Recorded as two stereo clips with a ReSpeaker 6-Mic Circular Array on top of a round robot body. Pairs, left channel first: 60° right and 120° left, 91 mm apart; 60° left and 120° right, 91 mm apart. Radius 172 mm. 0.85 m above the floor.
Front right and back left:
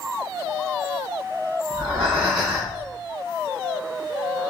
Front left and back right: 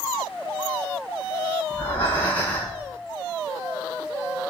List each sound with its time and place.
1.7 s breathing: 80° left, 1.6 m